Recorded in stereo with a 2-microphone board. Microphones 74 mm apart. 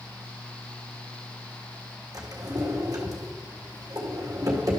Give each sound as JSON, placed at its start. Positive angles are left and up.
{"t": 2.1, "sound": "a drawer", "side_deg": -50, "distance_m": 1.9}